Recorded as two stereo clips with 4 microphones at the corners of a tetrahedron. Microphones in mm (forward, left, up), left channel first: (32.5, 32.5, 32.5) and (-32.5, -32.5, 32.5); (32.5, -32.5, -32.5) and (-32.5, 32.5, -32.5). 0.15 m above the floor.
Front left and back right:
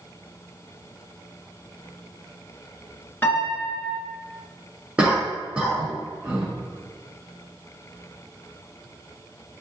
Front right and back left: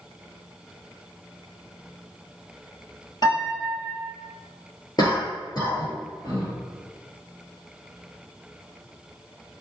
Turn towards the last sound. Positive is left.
turn(degrees=-60)